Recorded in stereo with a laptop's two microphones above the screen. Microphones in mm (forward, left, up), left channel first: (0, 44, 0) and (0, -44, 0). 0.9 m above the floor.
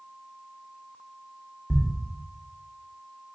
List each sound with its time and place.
1.7 s a thud: 15° left (ahead or behind), 0.5 m